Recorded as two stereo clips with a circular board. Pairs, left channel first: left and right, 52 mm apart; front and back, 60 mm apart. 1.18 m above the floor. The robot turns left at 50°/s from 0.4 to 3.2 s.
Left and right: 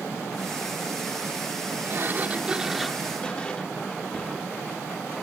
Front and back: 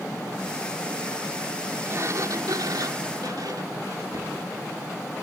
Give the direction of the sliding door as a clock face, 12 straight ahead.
4 o'clock.